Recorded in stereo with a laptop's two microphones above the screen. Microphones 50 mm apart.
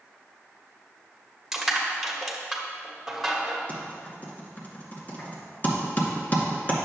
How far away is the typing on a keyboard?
About 1.9 m.